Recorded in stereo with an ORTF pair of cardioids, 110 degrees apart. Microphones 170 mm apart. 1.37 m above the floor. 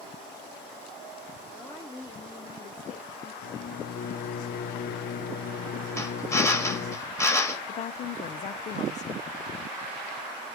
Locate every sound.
1.5 s a woman speaking: 15° left, 1.2 m; by 3.3 s 55° left, 1.7 m
3.4 s a microwave: 65° left, 1.0 m
6.0 s a drill: 15° left, 1.7 m
7.7 s a woman speaking: 45° left, 0.5 m